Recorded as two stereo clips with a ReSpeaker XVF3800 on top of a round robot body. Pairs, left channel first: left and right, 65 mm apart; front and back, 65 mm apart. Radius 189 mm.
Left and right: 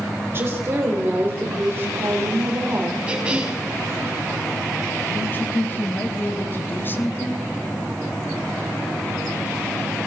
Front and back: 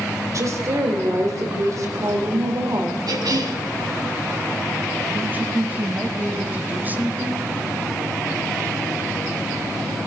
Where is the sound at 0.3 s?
145° right, 3 m.